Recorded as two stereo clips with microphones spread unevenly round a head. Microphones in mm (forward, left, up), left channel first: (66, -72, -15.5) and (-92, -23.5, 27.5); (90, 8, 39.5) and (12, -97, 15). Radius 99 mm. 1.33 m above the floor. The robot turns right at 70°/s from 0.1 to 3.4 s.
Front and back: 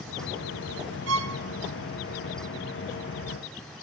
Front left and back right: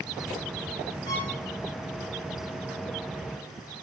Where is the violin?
125° left, 1.5 m; by 1.4 s 145° left, 1.5 m.